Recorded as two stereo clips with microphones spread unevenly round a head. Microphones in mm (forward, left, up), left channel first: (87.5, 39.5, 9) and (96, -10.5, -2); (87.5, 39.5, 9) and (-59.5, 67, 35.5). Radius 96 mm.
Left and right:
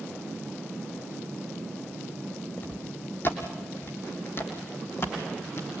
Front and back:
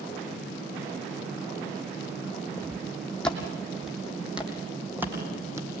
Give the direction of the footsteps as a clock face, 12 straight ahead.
10 o'clock.